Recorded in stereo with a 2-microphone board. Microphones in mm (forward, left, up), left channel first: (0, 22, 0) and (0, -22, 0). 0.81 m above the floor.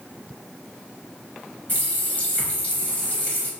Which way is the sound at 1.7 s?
35° left (ahead or behind).